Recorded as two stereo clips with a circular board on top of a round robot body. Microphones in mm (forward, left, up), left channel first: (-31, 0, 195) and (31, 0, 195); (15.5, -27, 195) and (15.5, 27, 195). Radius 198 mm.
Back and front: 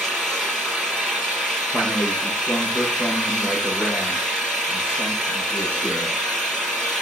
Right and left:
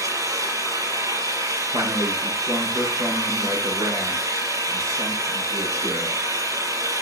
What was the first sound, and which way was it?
An engine running, 100° left.